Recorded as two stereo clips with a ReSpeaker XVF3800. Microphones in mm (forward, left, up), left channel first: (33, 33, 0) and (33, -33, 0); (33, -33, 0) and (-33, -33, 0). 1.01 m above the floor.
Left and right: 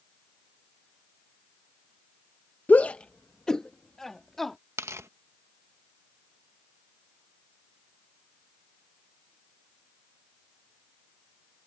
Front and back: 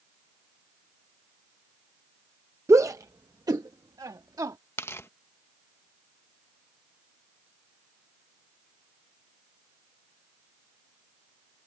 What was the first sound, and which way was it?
A shout, 150° left.